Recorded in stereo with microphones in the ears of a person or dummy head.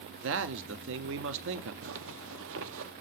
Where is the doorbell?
I don't hear a doorbell.